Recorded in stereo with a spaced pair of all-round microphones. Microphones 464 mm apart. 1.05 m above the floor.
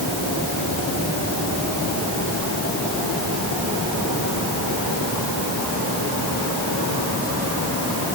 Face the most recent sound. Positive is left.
No sound to turn to.